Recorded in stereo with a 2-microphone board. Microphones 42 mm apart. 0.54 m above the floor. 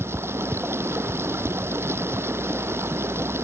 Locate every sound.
0.0 s running water: 75° right (ahead or behind)